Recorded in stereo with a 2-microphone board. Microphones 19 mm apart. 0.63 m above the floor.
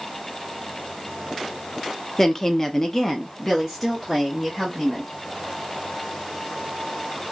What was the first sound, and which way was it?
A woman speaking, 25° left (ahead or behind).